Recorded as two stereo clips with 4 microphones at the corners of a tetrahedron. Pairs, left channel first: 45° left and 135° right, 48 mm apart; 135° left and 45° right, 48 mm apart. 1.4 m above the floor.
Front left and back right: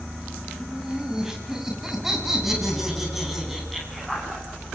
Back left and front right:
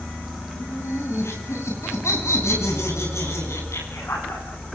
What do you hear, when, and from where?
0.5 s laughter: 150° left, 8.5 m; by 4.7 s 140° left, 13 m